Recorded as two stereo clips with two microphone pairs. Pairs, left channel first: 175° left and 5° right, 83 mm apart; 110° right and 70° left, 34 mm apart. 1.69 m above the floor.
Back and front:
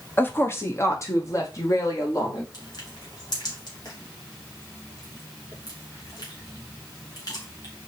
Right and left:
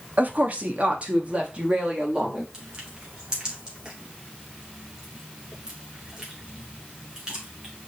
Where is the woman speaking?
110° left, 1.2 m; by 2.4 s 135° left, 3.5 m.